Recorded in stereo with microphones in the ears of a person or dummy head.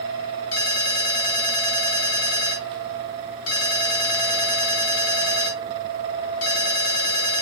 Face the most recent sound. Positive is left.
turn(degrees=60)  # may be behind; listen again after turning